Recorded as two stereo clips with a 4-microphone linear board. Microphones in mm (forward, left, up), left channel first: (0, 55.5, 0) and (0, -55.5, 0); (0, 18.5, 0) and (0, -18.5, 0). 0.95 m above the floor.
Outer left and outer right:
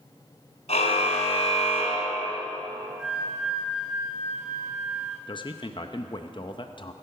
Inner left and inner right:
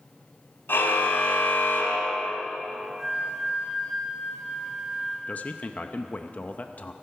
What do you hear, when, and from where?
0.7 s a car horn: 75° left (ahead or behind), 2.5 m; by 2.4 s 60° left (ahead or behind), 2.5 m
3.0 s a flute: 5° right (ahead or behind), 6 m
5.3 s a man speaking: 45° left (ahead or behind), 0.6 m